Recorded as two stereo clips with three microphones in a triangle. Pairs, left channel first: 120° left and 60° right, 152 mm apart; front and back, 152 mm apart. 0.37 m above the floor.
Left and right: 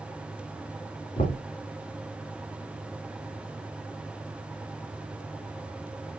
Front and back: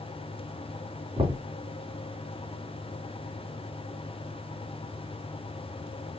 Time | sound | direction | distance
1.2 | knocking | 130° left | 3.5 m